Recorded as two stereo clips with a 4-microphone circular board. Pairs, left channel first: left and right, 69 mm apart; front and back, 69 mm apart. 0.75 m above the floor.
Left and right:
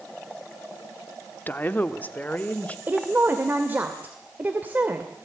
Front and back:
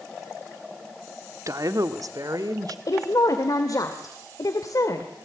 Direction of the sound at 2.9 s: 25° right.